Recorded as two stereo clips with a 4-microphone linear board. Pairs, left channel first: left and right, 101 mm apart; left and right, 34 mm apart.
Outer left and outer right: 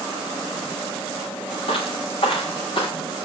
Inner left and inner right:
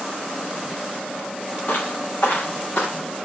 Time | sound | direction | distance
1.7 | footsteps | 65° left (ahead or behind) | 3 m